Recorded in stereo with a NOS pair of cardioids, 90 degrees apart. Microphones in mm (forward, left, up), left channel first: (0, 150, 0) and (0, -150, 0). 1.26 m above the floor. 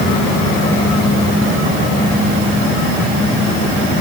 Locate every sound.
Only background noise.